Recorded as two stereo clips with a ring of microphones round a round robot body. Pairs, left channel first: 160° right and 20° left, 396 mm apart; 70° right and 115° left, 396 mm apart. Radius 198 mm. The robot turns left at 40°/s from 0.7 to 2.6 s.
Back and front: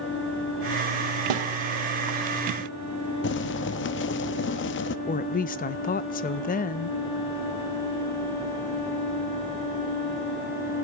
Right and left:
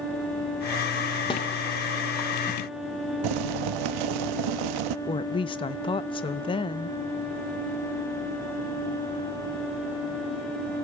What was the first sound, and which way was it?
A snare drum, 10° left.